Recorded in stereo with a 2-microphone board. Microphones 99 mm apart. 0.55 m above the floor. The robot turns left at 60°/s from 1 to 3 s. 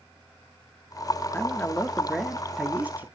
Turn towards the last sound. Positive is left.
turn(degrees=-20)  # may be behind; listen again after turning